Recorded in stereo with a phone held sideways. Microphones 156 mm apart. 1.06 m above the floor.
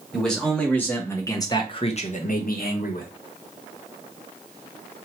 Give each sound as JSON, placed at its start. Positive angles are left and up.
{"t": 0.1, "sound": "a man speaking", "side_deg": 5, "distance_m": 2.0}